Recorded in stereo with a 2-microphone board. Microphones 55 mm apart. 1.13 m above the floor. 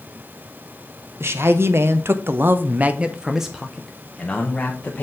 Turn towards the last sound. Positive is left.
turn(degrees=20)  # may be behind; listen again after turning